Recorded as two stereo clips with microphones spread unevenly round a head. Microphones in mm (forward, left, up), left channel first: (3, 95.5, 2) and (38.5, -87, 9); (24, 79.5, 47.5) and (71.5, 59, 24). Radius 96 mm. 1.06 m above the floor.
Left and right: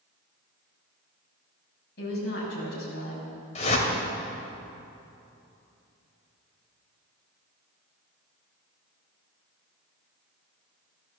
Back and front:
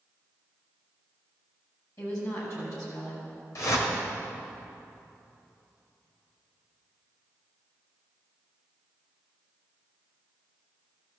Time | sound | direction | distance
2.0 | a woman speaking | 145° left | 6.5 m
3.5 | a whoosh | 160° left | 2.5 m